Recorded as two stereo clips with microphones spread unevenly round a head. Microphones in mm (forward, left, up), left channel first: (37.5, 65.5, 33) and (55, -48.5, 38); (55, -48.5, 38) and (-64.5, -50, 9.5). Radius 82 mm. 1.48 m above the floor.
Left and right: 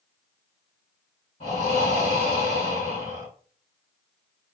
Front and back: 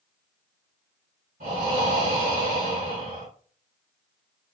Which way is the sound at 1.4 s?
150° left.